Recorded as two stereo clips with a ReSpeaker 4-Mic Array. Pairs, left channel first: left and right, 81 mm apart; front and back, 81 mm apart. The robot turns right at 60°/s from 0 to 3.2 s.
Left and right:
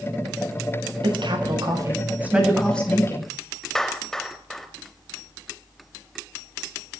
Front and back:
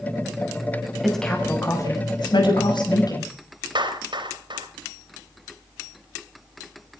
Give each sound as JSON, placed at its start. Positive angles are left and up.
{"t": 1.0, "sound": "a woman speaking", "azimuth_deg": -90, "distance_m": 6.0}
{"t": 3.8, "sound": "a clap", "azimuth_deg": 175, "distance_m": 3.5}